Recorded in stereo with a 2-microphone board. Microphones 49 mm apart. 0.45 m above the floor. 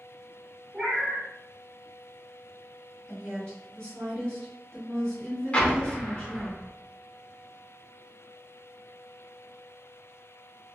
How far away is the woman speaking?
About 1.5 m.